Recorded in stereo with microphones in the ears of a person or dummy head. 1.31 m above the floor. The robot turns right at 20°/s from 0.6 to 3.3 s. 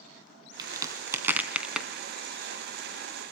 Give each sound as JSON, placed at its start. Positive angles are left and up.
{"t": 0.6, "sound": "a crack", "side_deg": -30, "distance_m": 2.5}